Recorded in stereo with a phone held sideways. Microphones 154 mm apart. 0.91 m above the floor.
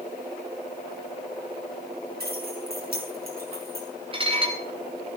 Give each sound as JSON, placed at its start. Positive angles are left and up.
{"t": 2.2, "sound": "keys jangling", "side_deg": -70, "distance_m": 6.0}
{"t": 4.1, "sound": "dishes clattering", "side_deg": -30, "distance_m": 3.0}